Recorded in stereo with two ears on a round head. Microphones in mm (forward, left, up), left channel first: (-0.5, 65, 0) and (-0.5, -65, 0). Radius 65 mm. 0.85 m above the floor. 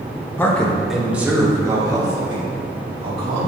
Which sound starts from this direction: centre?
A man speaking, at 0.4 s.